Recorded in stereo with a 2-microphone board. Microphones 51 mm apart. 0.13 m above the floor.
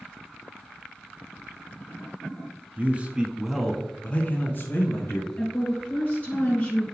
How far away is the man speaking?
About 1.2 m.